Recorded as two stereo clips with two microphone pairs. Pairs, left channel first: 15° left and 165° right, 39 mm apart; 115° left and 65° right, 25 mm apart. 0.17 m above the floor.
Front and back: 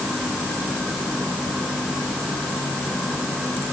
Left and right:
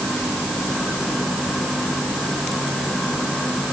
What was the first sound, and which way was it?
Only background noise.